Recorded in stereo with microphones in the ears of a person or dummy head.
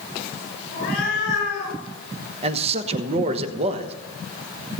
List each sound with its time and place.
0.7 s a cat meowing: 55° left (ahead or behind), 6.5 m; by 1.8 s 60° left (ahead or behind), 8 m
2.4 s a man speaking: 35° right (ahead or behind), 1.2 m